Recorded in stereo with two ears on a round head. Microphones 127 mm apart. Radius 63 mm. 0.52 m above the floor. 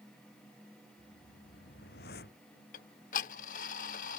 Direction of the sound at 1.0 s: 80° left.